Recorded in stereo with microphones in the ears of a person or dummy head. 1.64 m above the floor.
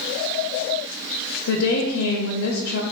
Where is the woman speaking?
75° left (ahead or behind), 0.5 m.